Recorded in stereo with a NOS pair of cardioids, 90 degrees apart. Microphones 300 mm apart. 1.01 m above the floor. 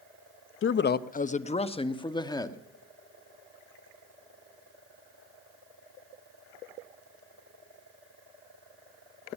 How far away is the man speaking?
About 0.6 m.